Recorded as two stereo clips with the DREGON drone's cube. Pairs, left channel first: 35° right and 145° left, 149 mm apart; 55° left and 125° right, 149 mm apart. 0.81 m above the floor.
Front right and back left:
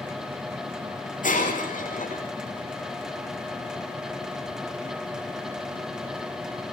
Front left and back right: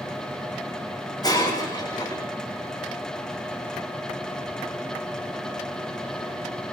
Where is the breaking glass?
10° right, 5.5 m.